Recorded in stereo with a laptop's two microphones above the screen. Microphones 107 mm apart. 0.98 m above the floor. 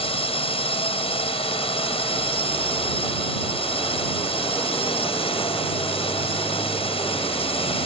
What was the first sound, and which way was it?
A drone, 65° left (ahead or behind).